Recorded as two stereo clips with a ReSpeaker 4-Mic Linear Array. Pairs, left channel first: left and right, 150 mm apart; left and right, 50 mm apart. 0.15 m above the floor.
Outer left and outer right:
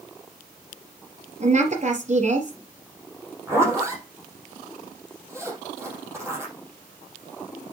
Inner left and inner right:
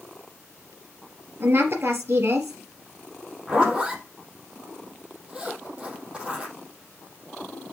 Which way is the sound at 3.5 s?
20° right (ahead or behind).